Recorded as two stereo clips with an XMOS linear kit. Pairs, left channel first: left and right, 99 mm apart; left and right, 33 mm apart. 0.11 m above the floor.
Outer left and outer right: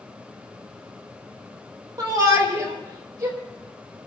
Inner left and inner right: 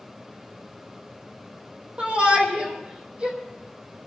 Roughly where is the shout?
Right.